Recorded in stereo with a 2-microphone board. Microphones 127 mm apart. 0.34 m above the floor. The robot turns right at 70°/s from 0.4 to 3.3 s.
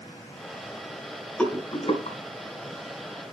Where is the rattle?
10° left (ahead or behind), 2.5 m; by 2.2 s 55° left (ahead or behind), 2.5 m.